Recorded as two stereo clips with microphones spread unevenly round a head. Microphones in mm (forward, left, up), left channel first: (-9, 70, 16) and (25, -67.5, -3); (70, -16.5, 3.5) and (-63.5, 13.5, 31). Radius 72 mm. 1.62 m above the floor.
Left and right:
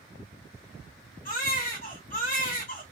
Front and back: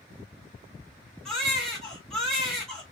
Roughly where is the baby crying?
Left.